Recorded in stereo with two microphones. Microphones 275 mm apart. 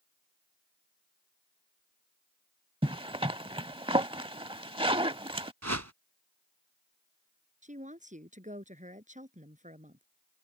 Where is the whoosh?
70° right (ahead or behind).